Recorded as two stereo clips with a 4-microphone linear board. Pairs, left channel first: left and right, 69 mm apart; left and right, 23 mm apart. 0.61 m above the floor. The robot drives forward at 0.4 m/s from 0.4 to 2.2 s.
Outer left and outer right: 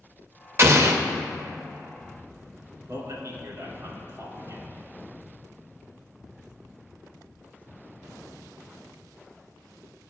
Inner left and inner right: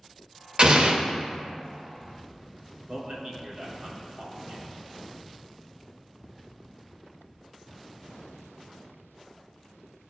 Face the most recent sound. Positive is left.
turn(degrees=-55)  # may be behind; listen again after turning